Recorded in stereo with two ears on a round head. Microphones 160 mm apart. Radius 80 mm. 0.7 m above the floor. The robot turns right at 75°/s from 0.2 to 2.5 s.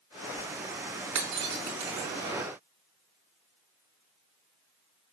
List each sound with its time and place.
1.1 s breaking glass: 90° right, 3 m; by 2.1 s 15° right (ahead or behind), 3 m